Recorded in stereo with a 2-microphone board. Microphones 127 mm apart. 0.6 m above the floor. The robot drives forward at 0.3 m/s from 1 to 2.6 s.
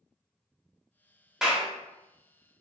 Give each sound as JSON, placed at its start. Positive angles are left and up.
{"t": 1.4, "sound": "a clap", "side_deg": -5, "distance_m": 0.6}